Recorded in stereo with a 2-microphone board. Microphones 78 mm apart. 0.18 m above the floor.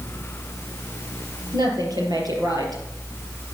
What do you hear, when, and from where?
1.5 s a woman speaking: 60° right (ahead or behind), 4.5 m